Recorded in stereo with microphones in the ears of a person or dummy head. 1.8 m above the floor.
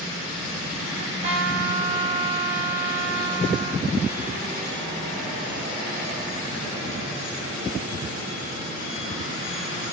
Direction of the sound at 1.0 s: 35° right (ahead or behind).